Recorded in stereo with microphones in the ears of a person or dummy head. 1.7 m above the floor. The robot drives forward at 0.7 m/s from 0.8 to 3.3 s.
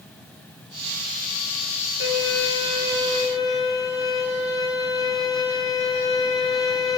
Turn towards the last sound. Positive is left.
turn(degrees=20)  # may be behind; listen again after turning